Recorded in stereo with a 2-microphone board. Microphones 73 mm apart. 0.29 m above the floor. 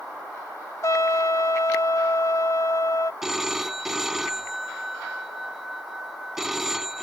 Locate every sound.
0.8 s a trumpet: 50° left (ahead or behind)
3.2 s a phone ringing: 5° right (ahead or behind)